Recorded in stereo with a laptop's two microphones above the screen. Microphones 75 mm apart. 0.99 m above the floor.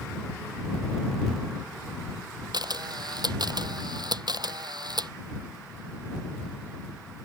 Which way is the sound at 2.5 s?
65° right (ahead or behind).